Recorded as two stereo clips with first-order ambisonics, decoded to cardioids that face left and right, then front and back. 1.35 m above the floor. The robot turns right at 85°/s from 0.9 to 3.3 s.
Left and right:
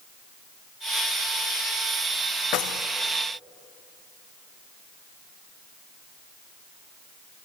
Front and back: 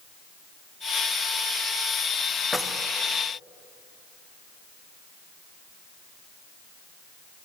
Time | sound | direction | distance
2.5 | keys jangling | 85° left | 0.5 m